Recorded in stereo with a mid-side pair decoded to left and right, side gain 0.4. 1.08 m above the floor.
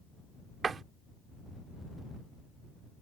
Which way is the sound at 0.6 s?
50° right.